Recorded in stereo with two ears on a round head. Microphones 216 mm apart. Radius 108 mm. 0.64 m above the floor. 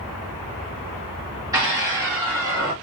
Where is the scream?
15° right (ahead or behind), 2.0 m; by 2.7 s 20° right (ahead or behind), 1.5 m.